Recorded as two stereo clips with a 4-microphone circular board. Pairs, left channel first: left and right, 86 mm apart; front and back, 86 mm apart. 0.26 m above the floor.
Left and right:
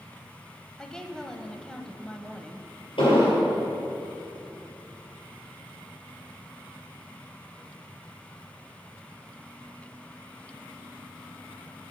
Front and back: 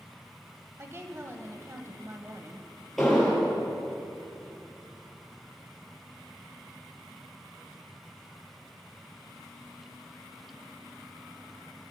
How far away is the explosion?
About 5 m.